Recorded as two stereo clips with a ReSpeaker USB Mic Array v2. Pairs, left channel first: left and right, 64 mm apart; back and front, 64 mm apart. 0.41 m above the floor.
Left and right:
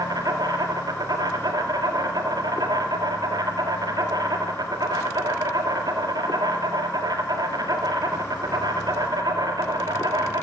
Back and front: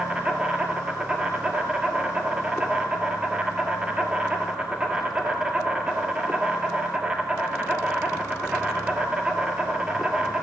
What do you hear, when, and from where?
0.0 s an insect: 80° right, 1.7 m